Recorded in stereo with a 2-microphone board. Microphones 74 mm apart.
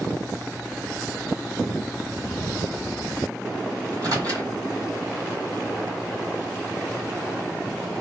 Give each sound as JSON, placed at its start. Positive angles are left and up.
{"t": 3.9, "sound": "a microwave", "side_deg": -55, "distance_m": 1.7}